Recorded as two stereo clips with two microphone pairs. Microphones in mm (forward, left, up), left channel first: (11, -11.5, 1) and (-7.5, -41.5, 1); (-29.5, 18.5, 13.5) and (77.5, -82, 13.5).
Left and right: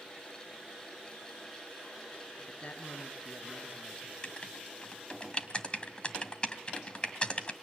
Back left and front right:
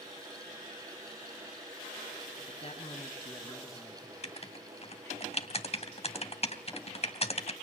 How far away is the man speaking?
About 3 m.